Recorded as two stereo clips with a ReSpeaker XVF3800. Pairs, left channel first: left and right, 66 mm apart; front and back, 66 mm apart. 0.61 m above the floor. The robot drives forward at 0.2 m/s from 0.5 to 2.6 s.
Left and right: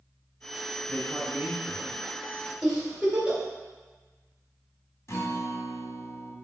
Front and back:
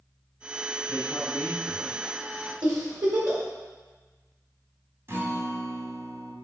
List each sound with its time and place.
0.9 s a man speaking: 50° left, 2 m; by 2.5 s 60° left, 2.0 m
2.6 s a giggle: 165° right, 2.5 m
5.1 s a guitar: 135° left, 1.3 m